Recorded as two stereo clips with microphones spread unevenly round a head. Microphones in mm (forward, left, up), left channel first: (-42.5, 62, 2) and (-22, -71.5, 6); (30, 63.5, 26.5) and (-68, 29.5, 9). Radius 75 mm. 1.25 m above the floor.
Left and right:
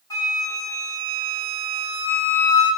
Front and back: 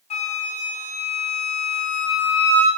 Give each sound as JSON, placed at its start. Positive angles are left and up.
{"t": 0.1, "sound": "a flute", "azimuth_deg": 30, "distance_m": 7.0}